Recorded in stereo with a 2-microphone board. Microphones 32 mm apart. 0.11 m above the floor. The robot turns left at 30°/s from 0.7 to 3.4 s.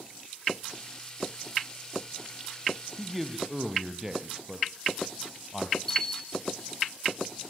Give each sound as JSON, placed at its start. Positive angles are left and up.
{"t": 3.0, "sound": "a man speaking", "side_deg": 5, "distance_m": 2.5}
{"t": 5.9, "sound": "a bell", "side_deg": 15, "distance_m": 1.5}